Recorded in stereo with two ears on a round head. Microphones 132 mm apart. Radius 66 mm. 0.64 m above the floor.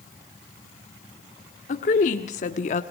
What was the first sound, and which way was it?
A woman speaking, 55° left (ahead or behind).